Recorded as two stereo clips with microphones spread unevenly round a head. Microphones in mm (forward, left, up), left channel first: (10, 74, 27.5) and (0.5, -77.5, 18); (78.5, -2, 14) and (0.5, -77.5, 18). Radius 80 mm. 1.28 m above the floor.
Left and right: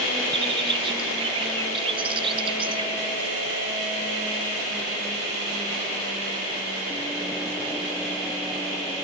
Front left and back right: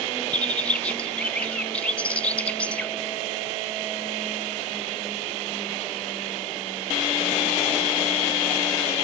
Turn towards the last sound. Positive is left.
turn(degrees=-35)